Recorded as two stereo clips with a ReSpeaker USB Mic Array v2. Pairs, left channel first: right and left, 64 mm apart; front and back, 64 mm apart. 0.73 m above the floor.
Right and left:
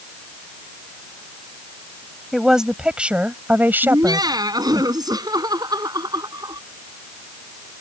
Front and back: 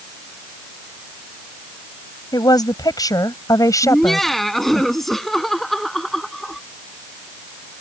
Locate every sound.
2.3 s a woman speaking: 5° left; by 4.8 s 45° left
3.8 s laughter: 85° left